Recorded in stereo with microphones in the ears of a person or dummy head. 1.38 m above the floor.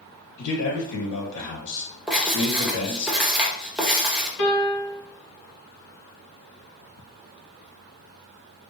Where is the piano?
65° left (ahead or behind), 1.9 m.